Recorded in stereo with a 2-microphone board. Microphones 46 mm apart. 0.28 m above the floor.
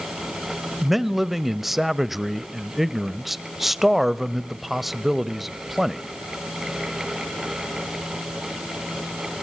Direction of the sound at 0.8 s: 5° right (ahead or behind).